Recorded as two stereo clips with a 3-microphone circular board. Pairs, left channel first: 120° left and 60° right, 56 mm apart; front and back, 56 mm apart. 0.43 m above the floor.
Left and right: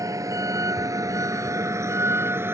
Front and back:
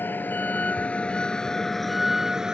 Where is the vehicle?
55° right; by 2.5 s 105° right.